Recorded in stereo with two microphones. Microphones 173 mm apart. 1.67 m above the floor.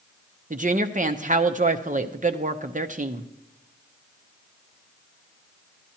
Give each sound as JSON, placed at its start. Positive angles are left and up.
{"t": 0.5, "sound": "a woman speaking", "side_deg": -50, "distance_m": 0.7}